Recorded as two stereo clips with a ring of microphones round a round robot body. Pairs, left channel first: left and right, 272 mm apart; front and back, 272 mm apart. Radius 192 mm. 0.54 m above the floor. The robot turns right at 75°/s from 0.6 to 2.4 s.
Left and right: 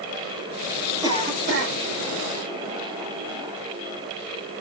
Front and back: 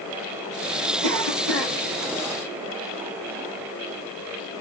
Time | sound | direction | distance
1.0 | a cough | 170° right | 3.5 m